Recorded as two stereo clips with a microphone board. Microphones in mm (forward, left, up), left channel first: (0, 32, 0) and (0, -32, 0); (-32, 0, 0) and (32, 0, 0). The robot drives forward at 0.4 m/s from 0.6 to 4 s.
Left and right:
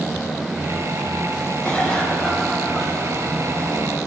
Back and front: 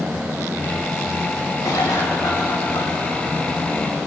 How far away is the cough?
About 5 m.